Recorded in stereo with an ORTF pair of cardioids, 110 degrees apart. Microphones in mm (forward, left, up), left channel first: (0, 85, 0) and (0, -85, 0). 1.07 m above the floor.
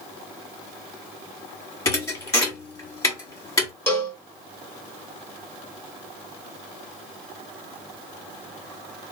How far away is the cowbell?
About 1.2 m.